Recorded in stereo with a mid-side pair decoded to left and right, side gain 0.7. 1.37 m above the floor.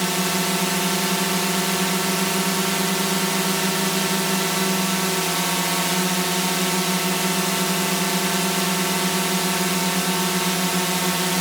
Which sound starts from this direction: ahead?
A drone, at 0.0 s.